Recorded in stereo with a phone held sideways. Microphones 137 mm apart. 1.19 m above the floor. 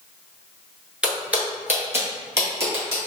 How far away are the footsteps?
About 1.2 m.